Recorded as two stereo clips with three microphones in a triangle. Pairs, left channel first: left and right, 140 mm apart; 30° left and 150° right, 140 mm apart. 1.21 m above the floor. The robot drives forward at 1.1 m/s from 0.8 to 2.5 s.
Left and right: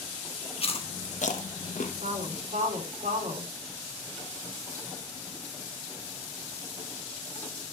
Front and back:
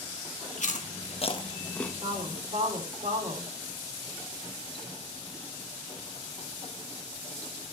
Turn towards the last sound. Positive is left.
turn(degrees=-115)